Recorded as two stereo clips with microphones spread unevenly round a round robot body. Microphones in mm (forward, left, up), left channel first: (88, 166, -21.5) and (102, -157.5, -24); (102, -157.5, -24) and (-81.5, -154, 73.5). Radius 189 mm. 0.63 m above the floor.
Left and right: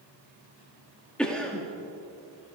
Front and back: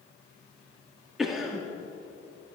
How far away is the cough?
About 1.2 m.